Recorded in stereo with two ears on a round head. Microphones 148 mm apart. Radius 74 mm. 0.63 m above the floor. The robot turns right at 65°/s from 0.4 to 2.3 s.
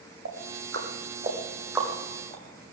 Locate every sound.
0.2 s ticking: 85° right, 5 m; by 2.7 s 30° left (ahead or behind), 5 m